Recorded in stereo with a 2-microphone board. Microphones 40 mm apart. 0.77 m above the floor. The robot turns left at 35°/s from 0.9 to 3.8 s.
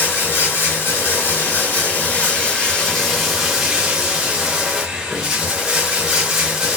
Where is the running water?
85° left, 1.0 m; by 6.8 s 15° right, 1.0 m.